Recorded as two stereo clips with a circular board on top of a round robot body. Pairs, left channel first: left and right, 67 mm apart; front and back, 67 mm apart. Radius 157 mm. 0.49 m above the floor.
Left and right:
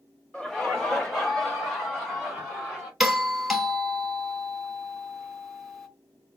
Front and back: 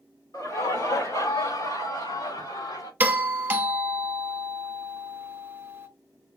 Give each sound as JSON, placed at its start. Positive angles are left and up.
{"t": 0.3, "sound": "laughter", "azimuth_deg": 10, "distance_m": 2.5}
{"t": 3.0, "sound": "a doorbell", "azimuth_deg": -175, "distance_m": 1.4}